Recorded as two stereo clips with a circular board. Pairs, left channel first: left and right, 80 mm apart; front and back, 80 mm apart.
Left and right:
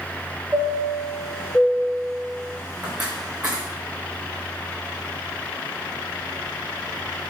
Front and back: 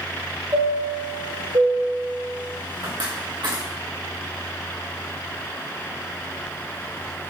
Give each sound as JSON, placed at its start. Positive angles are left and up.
{"t": 0.5, "sound": "a chime", "azimuth_deg": -155, "distance_m": 4.0}